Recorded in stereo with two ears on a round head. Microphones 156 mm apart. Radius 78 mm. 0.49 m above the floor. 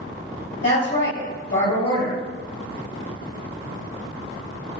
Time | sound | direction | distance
0.6 | a woman speaking | 60° left (ahead or behind) | 1.7 m